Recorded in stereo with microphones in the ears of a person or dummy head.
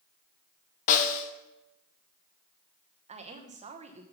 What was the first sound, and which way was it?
A snare drum, 40° left (ahead or behind).